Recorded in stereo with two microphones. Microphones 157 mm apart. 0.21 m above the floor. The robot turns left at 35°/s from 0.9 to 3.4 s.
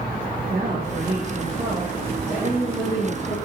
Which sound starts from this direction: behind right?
A woman speaking, at 0.5 s.